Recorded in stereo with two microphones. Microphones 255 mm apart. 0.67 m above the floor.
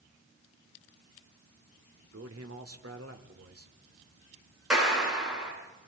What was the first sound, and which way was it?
A man speaking, 65° right (ahead or behind).